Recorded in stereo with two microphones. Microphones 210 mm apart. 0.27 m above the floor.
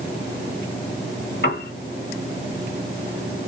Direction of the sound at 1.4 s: 55° left (ahead or behind).